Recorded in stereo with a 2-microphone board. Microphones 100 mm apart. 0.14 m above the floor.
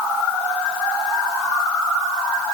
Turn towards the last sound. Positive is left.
No sound to turn to.